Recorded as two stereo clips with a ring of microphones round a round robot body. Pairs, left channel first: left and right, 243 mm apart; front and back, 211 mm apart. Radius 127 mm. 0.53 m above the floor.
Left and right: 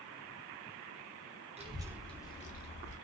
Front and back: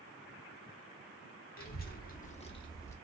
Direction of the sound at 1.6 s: 30° right.